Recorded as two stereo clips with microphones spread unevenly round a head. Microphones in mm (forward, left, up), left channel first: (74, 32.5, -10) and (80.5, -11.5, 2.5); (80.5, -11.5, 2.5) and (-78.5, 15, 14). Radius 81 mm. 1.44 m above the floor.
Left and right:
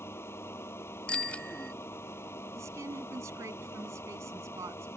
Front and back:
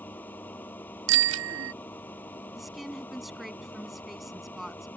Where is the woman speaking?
100° right.